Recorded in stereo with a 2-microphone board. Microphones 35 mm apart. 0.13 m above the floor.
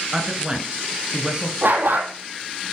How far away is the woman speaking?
About 1.8 m.